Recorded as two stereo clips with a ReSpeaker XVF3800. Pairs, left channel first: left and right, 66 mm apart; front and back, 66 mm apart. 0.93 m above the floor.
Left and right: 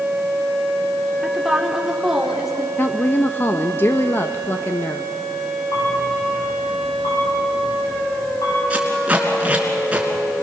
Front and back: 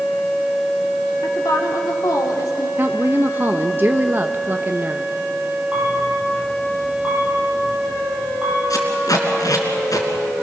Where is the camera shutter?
110° left, 7.5 m.